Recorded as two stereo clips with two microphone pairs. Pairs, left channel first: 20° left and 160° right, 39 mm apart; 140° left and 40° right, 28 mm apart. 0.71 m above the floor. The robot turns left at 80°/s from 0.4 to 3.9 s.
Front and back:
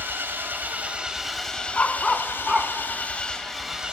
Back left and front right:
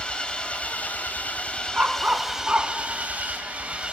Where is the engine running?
170° right, 1.8 m; by 3.9 s 90° right, 1.8 m.